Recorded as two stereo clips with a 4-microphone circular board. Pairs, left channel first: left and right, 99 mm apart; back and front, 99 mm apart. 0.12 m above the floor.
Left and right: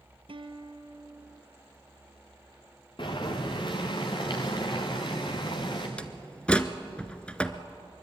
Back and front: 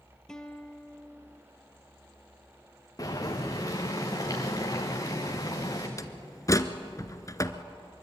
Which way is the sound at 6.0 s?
160° left.